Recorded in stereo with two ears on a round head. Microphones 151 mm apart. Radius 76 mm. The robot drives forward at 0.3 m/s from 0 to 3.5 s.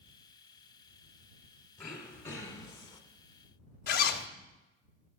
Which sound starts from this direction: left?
A zipper, at 3.9 s.